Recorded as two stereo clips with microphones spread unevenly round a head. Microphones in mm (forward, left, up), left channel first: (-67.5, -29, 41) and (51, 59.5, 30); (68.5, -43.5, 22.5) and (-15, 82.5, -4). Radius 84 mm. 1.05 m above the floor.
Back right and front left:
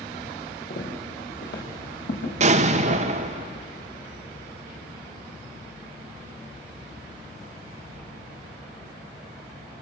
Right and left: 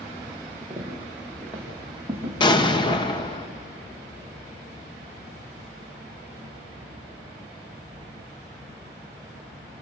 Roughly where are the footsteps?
Behind right.